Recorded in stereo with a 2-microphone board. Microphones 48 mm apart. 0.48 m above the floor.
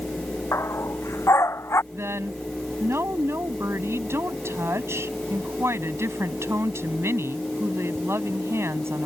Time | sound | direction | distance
0.5 | a dog barking | 85° left | ?
1.9 | a woman speaking | 70° right (ahead or behind) | ?